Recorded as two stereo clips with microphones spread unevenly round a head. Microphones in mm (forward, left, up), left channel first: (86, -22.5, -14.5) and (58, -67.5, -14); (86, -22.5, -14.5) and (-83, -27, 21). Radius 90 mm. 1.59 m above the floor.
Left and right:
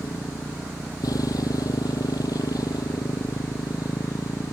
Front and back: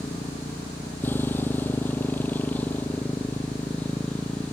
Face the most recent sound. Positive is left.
turn(degrees=85)